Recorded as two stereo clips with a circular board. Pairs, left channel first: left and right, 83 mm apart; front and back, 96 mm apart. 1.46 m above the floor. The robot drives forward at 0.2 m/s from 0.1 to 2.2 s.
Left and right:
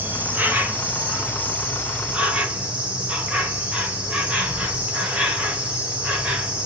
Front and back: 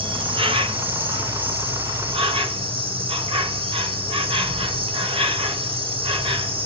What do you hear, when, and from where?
0.0 s an insect: 155° right, 0.8 m; by 6.7 s 165° right, 1.2 m